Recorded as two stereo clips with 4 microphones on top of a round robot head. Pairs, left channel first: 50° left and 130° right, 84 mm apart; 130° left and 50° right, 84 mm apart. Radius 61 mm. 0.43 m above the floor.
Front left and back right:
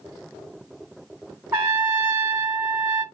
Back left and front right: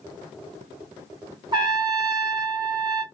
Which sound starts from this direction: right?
A trumpet, at 1.5 s.